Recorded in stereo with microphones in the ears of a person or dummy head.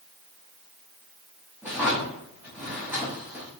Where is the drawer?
5° right (ahead or behind), 1.0 m.